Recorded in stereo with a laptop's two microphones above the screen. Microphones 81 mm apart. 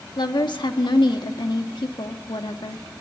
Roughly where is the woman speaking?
Left.